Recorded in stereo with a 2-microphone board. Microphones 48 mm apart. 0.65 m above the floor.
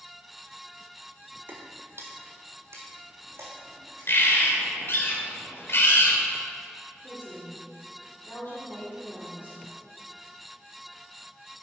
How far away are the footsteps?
About 0.9 m.